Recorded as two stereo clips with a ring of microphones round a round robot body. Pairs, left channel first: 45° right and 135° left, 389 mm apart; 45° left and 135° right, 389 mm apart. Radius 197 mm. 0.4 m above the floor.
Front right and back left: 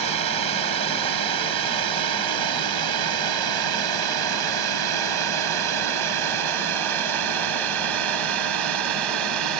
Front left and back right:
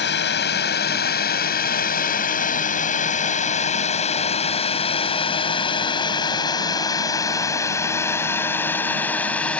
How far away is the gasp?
I don't hear a gasp.